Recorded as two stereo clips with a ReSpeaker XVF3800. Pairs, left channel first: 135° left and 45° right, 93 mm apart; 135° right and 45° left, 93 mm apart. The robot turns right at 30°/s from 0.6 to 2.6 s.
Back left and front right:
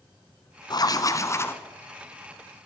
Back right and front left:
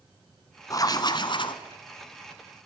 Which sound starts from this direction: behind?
Writing, at 0.7 s.